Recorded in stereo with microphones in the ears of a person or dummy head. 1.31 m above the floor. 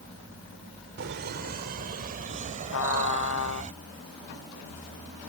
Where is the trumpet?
75° left (ahead or behind).